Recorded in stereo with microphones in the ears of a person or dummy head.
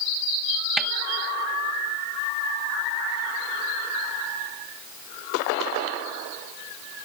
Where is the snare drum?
Centre (ahead or behind).